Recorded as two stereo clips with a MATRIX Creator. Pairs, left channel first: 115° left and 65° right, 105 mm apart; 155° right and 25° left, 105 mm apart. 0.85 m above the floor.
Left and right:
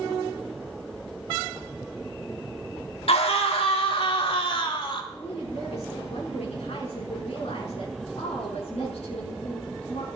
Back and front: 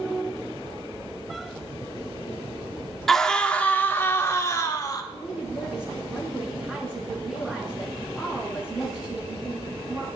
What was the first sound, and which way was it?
A scream, 115° left.